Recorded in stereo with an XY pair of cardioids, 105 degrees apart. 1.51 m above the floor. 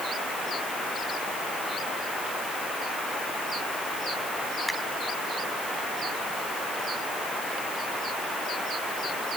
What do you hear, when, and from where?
4.7 s a finger snap: 5° left